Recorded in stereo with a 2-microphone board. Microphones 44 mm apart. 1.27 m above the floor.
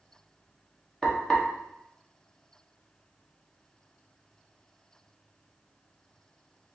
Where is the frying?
10° left (ahead or behind), 1.2 m.